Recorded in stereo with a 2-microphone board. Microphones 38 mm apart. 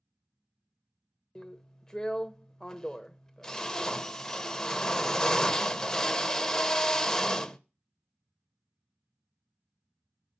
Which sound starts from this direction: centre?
A drill, at 1.4 s.